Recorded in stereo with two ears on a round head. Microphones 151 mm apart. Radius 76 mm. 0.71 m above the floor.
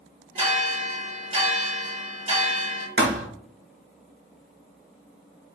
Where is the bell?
40° right (ahead or behind), 1.7 m.